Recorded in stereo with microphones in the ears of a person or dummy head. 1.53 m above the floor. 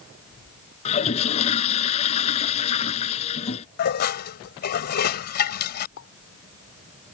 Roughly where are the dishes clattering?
Left.